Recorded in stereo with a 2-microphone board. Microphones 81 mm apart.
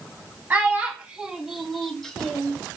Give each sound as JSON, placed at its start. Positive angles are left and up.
{"t": 0.5, "sound": "a child speaking", "side_deg": -20, "distance_m": 0.6}